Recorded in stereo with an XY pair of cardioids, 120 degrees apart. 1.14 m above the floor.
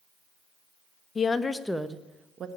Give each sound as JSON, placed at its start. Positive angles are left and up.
{"t": 1.1, "sound": "a woman speaking", "azimuth_deg": 35, "distance_m": 1.1}